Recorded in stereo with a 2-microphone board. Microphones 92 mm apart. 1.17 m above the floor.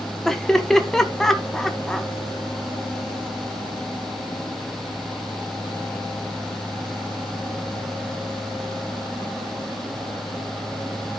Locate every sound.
0.2 s laughter: 5° left (ahead or behind), 1.4 m